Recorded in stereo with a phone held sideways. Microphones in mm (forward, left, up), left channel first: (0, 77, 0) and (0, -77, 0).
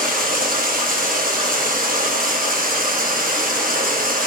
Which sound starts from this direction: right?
Running water, at 0.0 s.